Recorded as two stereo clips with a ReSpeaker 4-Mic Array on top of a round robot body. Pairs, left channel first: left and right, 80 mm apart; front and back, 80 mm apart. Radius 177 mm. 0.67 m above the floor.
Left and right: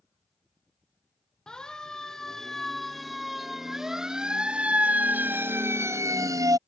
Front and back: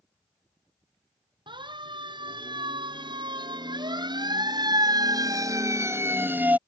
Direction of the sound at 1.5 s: 170° left.